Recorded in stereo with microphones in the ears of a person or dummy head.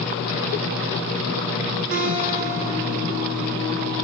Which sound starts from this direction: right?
A guitar, at 1.9 s.